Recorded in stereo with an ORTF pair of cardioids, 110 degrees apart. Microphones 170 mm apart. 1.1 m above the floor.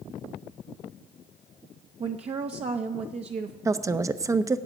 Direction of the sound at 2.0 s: 40° right.